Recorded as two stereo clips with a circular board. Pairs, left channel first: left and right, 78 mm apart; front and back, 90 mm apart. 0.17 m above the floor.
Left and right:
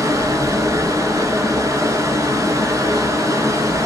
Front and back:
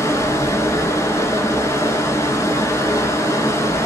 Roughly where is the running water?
Ahead right.